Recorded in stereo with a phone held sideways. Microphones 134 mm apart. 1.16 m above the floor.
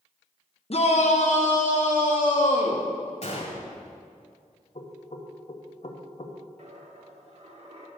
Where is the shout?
50° left (ahead or behind), 0.9 m; by 2.9 s 85° left, 1.8 m.